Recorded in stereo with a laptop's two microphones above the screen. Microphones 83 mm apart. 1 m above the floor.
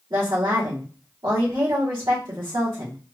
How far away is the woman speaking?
About 2.5 m.